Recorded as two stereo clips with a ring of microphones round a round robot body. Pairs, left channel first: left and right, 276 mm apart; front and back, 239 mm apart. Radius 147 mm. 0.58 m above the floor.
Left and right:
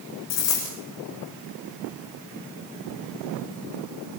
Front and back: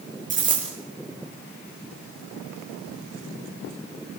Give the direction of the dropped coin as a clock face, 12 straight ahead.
8 o'clock.